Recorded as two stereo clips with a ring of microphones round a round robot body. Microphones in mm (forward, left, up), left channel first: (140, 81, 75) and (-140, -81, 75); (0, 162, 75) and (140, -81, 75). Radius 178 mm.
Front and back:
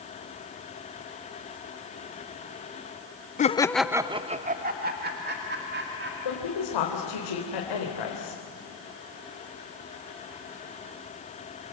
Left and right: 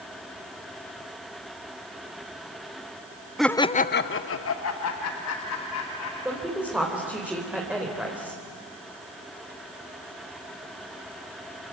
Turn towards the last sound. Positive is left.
turn(degrees=25)